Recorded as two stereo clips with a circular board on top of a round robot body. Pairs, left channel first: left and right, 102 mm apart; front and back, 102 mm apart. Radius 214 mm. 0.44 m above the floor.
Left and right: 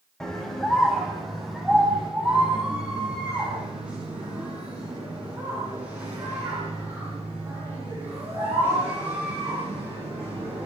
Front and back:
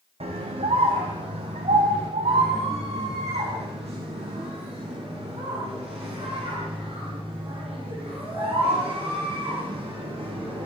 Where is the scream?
175° left, 3.5 m; by 10.7 s 160° right, 12 m.